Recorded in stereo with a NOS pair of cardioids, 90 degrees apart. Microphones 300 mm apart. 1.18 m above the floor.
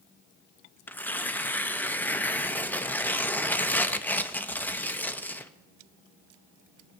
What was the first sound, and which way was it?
Tearing paper, 5° left.